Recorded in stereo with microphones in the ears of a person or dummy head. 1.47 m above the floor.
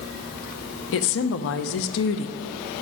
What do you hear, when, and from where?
0.9 s a woman speaking: 70° left (ahead or behind), 0.8 m